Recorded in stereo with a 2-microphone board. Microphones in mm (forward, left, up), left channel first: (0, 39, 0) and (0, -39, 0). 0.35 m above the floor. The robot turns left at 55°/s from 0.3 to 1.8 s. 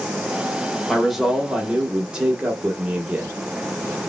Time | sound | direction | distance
0.9 | a man speaking | centre (ahead or behind) | 0.8 m